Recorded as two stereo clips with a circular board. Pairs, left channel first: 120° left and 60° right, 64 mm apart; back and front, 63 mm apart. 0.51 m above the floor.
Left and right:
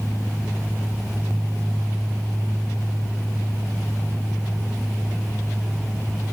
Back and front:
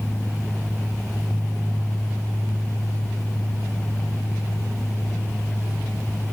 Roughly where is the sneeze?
No sneeze in this recording.